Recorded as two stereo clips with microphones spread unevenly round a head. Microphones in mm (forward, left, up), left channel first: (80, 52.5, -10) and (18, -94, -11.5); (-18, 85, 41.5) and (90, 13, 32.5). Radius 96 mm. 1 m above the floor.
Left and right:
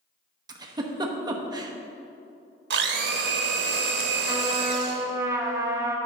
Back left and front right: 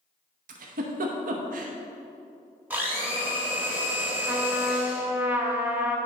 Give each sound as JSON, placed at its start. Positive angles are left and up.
{"t": 0.5, "sound": "a giggle", "azimuth_deg": -45, "distance_m": 0.9}
{"t": 2.7, "sound": "a blender", "azimuth_deg": -115, "distance_m": 0.8}
{"t": 4.3, "sound": "a trumpet", "azimuth_deg": -70, "distance_m": 0.9}